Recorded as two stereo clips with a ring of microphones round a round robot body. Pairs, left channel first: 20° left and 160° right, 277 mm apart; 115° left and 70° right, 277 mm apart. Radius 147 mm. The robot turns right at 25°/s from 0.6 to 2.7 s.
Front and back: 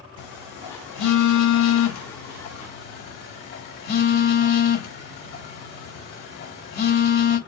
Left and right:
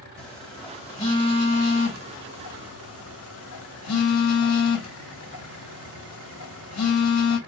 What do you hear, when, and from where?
0.2 s a phone buzzing: 25° left, 3 m; by 7.4 s 80° left, 3 m